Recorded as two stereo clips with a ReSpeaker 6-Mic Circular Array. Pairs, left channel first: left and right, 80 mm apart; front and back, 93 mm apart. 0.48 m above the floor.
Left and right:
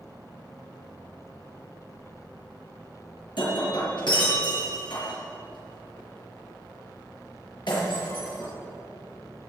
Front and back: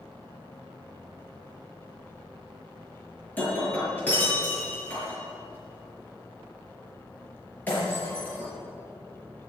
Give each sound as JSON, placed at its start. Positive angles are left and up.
{"t": 3.4, "sound": "breaking glass", "azimuth_deg": 70, "distance_m": 5.5}